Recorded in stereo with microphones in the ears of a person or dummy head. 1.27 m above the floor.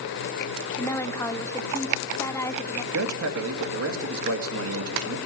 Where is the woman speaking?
15° left (ahead or behind), 0.6 m.